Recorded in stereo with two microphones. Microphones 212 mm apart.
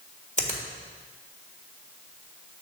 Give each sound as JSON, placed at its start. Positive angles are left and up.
{"t": 0.4, "sound": "a finger snap", "side_deg": 35, "distance_m": 1.5}